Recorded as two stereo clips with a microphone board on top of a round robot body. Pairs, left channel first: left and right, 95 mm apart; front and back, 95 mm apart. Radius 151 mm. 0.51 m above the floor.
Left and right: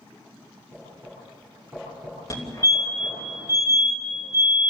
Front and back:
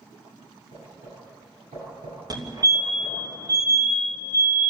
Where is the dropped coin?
I don't hear a dropped coin.